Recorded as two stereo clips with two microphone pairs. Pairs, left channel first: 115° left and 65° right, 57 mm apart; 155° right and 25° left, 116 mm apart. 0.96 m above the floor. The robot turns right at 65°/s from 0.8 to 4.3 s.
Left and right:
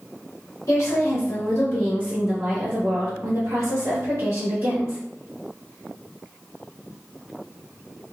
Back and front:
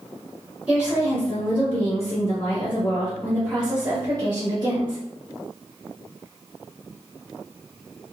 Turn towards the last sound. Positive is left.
turn(degrees=-15)